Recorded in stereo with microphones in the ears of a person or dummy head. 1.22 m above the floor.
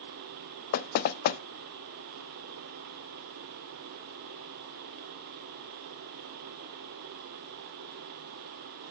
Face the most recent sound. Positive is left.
turn(degrees=50)  # may be behind; listen again after turning